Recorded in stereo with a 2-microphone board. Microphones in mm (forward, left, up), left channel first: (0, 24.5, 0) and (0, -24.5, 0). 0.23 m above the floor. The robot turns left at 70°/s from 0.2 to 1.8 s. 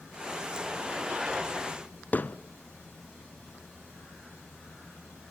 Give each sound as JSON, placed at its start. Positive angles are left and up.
{"t": 2.1, "sound": "hammering", "side_deg": 35, "distance_m": 0.6}